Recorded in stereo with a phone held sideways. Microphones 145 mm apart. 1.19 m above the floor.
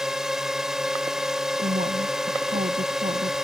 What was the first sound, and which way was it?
A drone, 5° right (ahead or behind).